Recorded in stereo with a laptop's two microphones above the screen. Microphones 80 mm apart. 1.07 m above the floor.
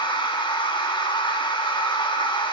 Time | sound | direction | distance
0.0 | a machine running | 80° left | 1.8 m